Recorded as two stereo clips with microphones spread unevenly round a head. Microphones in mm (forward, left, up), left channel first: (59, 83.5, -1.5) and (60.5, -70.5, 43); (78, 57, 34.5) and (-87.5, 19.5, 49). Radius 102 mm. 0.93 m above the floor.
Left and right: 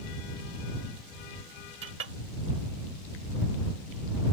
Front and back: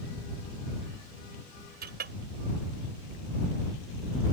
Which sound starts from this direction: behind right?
A clink, at 1.8 s.